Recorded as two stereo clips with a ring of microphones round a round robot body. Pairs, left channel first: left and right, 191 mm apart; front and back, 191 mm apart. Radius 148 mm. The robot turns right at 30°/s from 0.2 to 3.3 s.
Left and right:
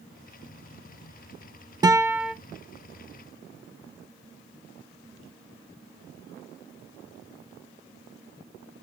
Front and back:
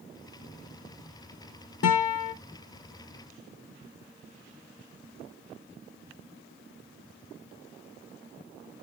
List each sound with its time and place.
1.8 s a guitar: 20° right, 0.5 m; by 2.3 s 5° right, 0.5 m